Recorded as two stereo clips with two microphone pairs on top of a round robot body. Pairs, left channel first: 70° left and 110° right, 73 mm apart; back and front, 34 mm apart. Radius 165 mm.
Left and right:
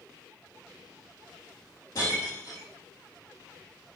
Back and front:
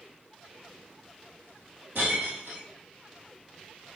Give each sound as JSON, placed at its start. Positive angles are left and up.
{"t": 1.9, "sound": "breaking glass", "azimuth_deg": 20, "distance_m": 3.5}